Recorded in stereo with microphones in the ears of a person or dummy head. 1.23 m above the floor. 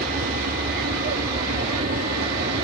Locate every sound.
0.0 s an aircraft: 45° right (ahead or behind)